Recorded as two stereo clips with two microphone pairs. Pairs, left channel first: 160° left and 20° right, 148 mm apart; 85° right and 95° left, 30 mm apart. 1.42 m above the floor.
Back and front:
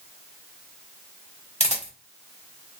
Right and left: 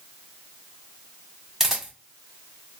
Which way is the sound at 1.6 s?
160° left.